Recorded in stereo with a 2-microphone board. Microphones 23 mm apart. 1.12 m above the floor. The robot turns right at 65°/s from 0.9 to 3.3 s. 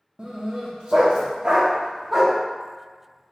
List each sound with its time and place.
0.2 s a dog barking: 45° right (ahead or behind), 0.7 m; by 2.4 s 5° right (ahead or behind), 0.7 m